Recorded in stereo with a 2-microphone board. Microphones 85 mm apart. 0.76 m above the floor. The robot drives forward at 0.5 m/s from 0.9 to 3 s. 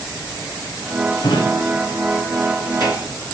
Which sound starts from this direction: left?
A drawer, at 1.2 s.